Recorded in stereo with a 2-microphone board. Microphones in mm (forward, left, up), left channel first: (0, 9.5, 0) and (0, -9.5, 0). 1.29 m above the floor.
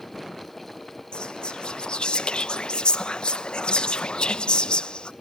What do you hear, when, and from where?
1.1 s whispering: 55° left (ahead or behind), 0.7 m